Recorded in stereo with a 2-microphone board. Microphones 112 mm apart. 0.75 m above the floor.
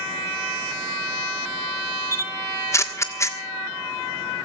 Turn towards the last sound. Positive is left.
turn(degrees=25)  # may be behind; listen again after turning